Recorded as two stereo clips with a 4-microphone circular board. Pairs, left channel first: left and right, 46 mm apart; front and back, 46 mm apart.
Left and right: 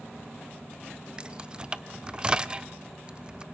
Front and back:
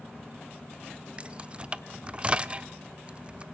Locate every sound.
1.2 s keys jangling: 140° right, 0.6 m